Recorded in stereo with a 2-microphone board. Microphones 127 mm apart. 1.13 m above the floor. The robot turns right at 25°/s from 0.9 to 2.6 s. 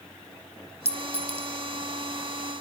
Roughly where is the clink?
Right.